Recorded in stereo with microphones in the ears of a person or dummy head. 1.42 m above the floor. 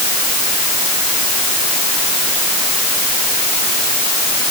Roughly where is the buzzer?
I don't hear a buzzer.